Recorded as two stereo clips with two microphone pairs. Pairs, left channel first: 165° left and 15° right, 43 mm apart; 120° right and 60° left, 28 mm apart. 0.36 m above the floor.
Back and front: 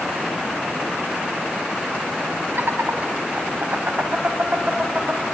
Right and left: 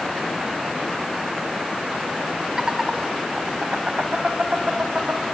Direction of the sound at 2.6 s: 10° right.